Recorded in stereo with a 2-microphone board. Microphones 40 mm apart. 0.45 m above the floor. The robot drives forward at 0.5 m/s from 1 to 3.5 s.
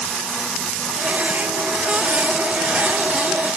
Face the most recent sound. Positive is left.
No sound to turn to.